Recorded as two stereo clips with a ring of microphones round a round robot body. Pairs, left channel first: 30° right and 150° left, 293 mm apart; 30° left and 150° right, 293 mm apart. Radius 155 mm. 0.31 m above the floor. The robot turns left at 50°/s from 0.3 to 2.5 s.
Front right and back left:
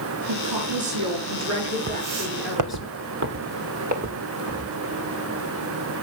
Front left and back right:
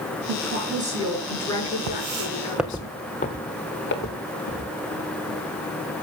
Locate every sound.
0.3 s a woman speaking: 170° left, 5 m; by 2.9 s 60° left, 5 m
1.9 s footsteps: 155° right, 1.3 m; by 5.2 s 75° left, 5 m